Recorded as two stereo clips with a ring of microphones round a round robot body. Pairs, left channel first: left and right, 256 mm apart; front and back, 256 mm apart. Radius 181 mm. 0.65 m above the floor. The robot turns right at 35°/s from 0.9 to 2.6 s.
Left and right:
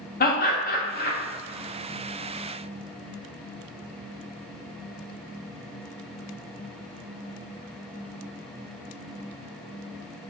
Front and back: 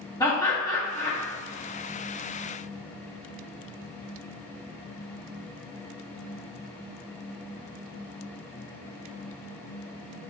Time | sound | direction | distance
0.2 | laughter | 70° left | 0.8 m